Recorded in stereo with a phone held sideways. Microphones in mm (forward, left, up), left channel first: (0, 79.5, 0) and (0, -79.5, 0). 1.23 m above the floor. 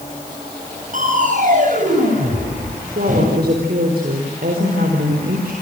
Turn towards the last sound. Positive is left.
turn(degrees=-75)  # may be behind; listen again after turning